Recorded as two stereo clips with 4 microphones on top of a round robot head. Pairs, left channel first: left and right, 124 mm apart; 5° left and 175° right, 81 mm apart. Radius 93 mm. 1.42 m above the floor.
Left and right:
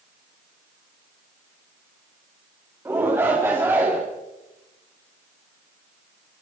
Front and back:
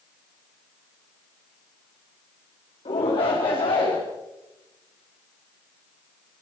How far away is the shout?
About 4 m.